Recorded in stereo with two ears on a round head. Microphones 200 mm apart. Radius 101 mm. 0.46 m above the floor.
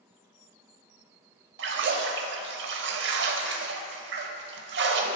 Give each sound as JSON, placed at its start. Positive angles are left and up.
{"t": 1.6, "sound": "a splash", "side_deg": -55, "distance_m": 0.6}